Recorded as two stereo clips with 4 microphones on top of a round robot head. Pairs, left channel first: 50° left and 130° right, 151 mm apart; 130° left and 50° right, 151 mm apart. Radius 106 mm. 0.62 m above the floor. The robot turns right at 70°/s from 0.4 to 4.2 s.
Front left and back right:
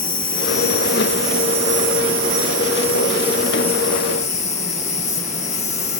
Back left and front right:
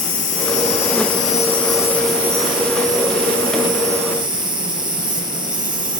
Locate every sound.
0.0 s an insect: 105° left, 2 m; by 6.0 s 10° left, 2 m